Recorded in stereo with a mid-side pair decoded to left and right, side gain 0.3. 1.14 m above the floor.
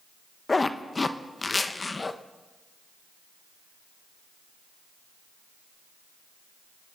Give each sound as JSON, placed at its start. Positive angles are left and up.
{"t": 0.5, "sound": "a zipper", "azimuth_deg": 35, "distance_m": 1.0}